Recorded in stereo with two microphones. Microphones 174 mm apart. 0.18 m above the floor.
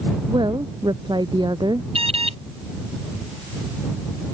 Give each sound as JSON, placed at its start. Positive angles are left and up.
{"t": 0.3, "sound": "a woman speaking", "side_deg": -25}
{"t": 1.9, "sound": "an alarm", "side_deg": -35}